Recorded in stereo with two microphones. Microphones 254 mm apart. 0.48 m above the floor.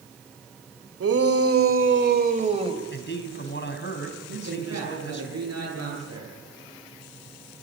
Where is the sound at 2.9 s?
45° left (ahead or behind), 3.5 m.